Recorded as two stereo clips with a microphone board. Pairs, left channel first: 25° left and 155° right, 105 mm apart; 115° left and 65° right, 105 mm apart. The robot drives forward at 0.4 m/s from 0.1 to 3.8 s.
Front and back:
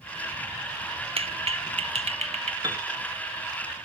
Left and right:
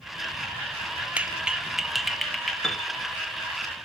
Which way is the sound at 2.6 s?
170° right.